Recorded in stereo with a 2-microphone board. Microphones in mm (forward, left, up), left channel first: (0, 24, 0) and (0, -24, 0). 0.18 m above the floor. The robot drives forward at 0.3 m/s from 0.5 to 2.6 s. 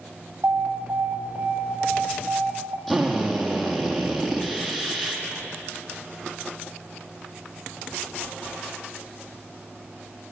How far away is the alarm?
About 4.5 m.